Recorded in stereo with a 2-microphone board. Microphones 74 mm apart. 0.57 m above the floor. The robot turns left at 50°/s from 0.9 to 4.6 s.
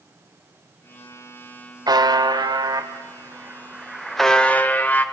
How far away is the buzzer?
About 1.5 m.